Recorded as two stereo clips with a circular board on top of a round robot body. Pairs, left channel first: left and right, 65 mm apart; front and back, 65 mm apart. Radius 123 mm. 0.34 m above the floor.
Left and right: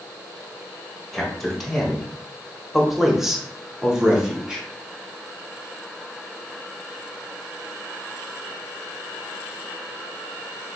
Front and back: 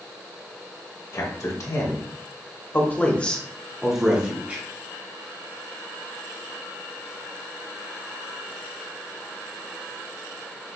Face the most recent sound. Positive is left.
turn(degrees=-155)